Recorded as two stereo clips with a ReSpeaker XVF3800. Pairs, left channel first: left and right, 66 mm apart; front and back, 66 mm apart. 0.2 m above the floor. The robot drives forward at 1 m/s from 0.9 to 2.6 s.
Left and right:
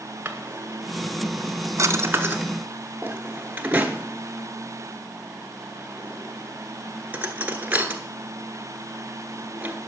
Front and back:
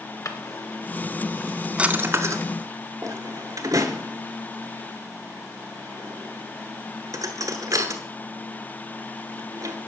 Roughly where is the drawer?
Ahead right.